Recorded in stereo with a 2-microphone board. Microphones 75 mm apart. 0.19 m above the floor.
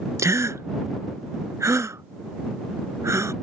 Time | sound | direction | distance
0.2 | a gasp | 40° right (ahead or behind) | ?